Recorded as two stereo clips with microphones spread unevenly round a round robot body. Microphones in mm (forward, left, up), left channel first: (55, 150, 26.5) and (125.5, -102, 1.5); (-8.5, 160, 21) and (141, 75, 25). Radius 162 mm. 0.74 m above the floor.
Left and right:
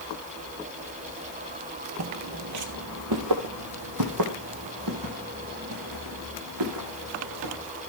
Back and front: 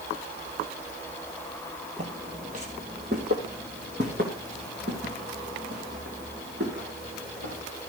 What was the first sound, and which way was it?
Footsteps, 85° right.